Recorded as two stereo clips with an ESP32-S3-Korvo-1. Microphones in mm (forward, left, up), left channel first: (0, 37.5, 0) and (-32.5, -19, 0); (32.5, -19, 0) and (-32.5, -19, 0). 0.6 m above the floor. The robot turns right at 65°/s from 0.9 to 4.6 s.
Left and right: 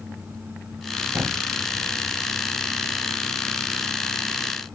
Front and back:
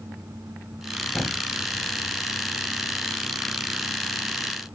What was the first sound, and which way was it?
A thud, 80° right.